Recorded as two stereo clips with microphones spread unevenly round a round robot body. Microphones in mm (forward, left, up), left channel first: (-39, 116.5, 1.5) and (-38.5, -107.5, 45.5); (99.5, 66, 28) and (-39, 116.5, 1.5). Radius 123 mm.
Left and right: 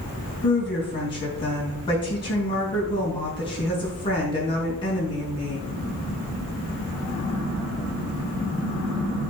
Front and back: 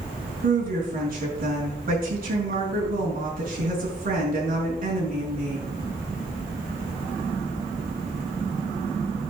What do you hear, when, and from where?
0.4 s a woman speaking: 155° left, 5 m